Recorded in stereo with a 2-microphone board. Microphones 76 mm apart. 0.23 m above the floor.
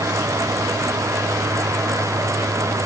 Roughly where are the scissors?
No scissors in this recording.